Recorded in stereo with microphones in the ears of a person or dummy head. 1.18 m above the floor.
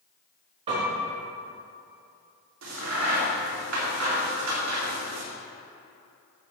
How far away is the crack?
About 2 m.